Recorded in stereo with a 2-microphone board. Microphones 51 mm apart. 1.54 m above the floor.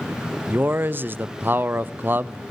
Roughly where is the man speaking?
Right.